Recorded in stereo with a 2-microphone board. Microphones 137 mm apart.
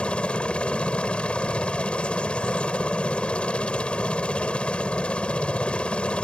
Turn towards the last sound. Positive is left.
turn(degrees=10)  # may be behind; listen again after turning